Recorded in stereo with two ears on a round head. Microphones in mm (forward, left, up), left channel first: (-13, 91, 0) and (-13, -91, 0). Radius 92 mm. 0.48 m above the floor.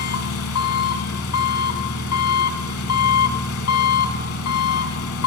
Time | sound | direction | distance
0.0 | an engine running | 75° left (ahead or behind) | 1.4 m